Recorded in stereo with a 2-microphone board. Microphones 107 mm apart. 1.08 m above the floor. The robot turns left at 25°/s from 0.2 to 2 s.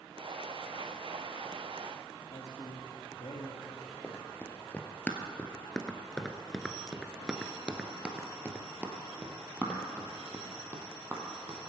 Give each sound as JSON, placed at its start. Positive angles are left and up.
{"t": 2.3, "sound": "a man speaking", "side_deg": 75, "distance_m": 1.6}
{"t": 4.0, "sound": "running footsteps", "side_deg": 15, "distance_m": 1.7}